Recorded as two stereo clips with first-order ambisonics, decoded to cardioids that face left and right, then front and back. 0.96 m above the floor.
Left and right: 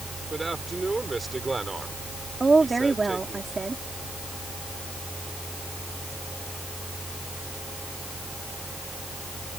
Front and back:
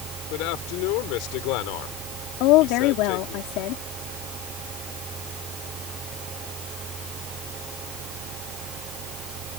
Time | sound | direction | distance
0.3 | a man speaking | 10° right | ?
2.4 | a woman speaking | 15° right | ?